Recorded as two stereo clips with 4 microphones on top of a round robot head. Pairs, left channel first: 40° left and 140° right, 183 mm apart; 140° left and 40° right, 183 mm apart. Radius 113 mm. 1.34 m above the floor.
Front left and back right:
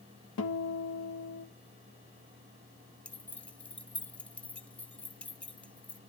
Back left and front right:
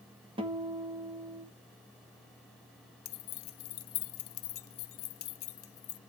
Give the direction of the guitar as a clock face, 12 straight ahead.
11 o'clock.